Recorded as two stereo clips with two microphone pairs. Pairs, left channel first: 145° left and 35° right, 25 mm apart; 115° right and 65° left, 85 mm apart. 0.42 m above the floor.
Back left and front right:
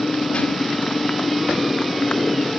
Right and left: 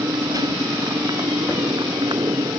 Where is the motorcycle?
110° left; by 2.6 s 95° left.